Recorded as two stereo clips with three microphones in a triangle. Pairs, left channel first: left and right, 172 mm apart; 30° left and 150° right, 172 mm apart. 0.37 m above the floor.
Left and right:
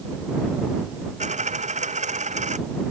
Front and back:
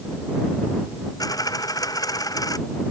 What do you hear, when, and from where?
1.2 s a dropped coin: 40° right